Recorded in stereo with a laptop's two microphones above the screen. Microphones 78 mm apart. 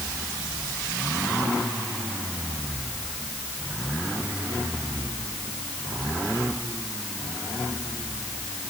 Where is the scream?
No scream in this recording.